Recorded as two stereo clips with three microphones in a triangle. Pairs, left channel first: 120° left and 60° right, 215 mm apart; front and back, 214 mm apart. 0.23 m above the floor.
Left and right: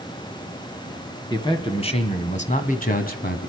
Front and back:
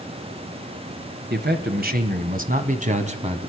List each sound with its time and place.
1.3 s a man speaking: 175° right, 2 m; by 3.5 s 130° left, 2.0 m